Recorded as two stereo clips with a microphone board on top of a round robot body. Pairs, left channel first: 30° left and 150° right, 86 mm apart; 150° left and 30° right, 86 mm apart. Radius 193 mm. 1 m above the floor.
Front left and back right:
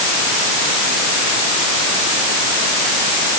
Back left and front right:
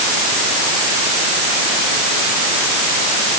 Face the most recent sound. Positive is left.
No sound to turn to.